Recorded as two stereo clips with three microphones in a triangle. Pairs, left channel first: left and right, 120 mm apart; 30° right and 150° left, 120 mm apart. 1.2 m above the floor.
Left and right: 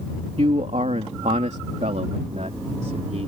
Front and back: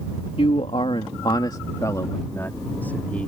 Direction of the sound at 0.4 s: 60° right.